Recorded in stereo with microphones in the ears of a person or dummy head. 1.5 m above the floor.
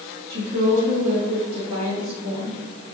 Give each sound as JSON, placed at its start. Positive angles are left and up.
{"t": 0.3, "sound": "a woman speaking", "side_deg": -60, "distance_m": 2.5}